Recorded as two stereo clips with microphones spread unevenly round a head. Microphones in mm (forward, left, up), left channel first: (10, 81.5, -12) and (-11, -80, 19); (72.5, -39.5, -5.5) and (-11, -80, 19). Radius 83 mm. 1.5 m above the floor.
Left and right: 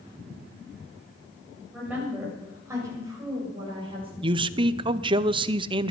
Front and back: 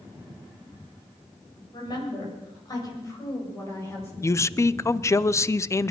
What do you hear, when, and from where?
1.7 s a woman speaking: 15° right, 8 m; by 4.1 s 40° right, 7.5 m
4.2 s a man speaking: 35° right, 0.7 m